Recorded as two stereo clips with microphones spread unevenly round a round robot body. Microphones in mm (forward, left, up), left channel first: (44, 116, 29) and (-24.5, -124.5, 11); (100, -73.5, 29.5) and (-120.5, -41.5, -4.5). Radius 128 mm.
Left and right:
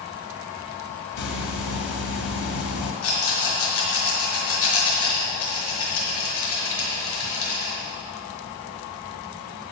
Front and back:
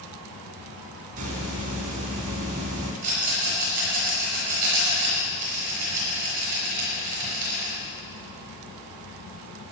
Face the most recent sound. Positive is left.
turn(degrees=110)